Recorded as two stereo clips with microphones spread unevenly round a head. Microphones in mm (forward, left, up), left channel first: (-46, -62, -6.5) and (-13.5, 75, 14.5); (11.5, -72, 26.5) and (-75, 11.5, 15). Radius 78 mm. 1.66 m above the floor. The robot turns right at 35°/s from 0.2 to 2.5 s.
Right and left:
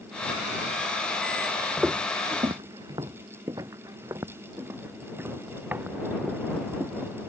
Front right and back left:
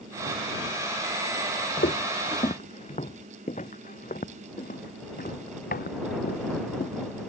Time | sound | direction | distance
1.8 | footsteps | 10° right | ?